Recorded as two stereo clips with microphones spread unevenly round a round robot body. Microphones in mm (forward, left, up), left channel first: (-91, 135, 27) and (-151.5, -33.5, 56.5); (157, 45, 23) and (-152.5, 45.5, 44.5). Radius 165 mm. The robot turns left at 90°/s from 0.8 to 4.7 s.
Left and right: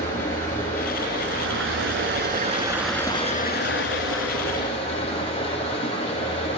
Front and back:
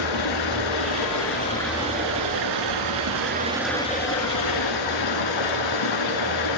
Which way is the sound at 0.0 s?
10° right.